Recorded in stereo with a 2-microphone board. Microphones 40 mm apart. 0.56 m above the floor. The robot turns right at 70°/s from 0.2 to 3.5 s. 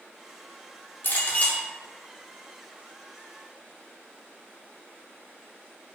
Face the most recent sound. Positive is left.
turn(degrees=-80)